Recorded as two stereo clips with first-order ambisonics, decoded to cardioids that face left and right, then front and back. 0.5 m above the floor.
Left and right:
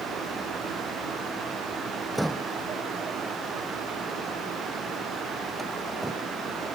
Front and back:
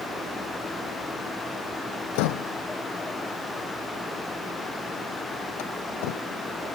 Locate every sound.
2.1 s a door slam: 5° right